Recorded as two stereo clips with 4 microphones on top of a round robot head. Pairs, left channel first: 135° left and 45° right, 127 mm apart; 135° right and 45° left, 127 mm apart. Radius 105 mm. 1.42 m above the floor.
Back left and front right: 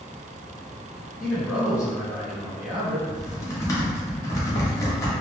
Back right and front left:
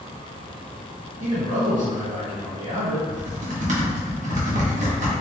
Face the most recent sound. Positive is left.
turn(degrees=65)